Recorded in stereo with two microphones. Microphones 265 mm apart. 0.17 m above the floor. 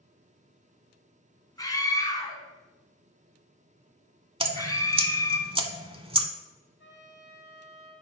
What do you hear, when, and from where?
1.6 s a scream: 15° left (ahead or behind), 1.2 m
4.4 s dripping: 20° right (ahead or behind), 0.6 m
6.8 s a trumpet: 45° left (ahead or behind), 3 m